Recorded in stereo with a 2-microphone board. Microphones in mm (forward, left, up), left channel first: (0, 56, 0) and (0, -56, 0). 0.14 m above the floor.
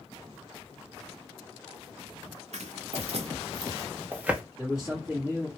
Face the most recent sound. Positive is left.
turn(degrees=-10)  # may be behind; listen again after turning